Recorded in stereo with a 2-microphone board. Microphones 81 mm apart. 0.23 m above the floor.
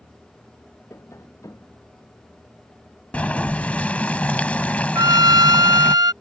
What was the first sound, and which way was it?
Tapping, 35° left (ahead or behind).